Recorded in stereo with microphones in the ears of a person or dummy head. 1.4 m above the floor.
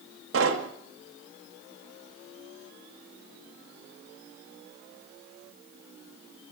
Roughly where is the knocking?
Right.